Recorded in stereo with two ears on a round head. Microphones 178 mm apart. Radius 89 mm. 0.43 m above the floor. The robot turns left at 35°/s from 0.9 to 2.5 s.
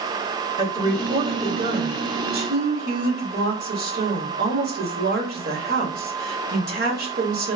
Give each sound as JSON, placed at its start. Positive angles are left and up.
{"t": 0.6, "sound": "a woman speaking", "azimuth_deg": -25, "distance_m": 1.4}